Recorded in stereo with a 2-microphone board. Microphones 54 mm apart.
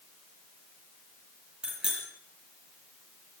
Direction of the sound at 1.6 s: 15° right (ahead or behind).